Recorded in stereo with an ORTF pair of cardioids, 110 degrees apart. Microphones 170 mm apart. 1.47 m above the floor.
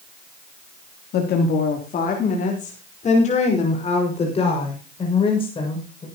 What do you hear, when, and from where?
1.1 s a woman speaking: 65° left, 3 m; by 6.0 s 30° left, 8 m